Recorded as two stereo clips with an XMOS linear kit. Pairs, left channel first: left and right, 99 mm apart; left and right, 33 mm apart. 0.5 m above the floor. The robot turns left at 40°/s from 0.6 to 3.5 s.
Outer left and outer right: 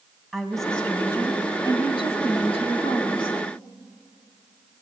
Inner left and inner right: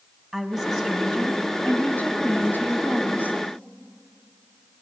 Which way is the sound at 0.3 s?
175° left.